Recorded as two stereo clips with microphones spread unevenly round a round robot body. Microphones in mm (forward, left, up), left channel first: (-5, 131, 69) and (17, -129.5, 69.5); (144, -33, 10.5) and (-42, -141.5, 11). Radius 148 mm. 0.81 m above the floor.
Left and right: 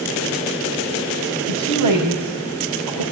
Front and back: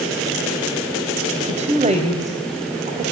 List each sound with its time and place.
1.5 s a woman speaking: 90° right, 4.5 m